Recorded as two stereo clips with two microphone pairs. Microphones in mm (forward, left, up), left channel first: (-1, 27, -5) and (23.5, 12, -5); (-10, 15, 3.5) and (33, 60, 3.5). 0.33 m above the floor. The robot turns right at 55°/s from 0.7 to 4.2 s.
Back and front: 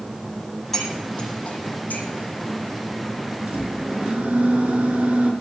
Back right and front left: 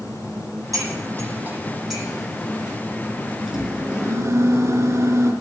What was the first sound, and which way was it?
Cutlery clinking, 70° left.